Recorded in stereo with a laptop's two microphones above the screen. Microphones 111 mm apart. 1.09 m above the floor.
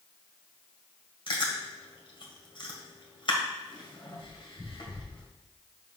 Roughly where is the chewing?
Left.